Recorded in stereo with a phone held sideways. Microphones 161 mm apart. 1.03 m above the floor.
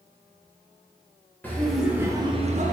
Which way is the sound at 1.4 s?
10° left (ahead or behind).